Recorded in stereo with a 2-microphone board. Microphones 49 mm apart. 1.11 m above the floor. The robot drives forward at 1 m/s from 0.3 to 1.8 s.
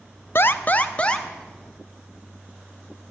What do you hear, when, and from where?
0.3 s an alarm: 50° left (ahead or behind), 0.6 m; by 1.3 s 20° left (ahead or behind), 1.3 m